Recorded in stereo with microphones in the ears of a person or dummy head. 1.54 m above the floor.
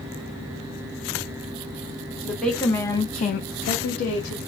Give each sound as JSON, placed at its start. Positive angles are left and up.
{"t": 2.2, "sound": "a woman speaking", "side_deg": 0, "distance_m": 1.6}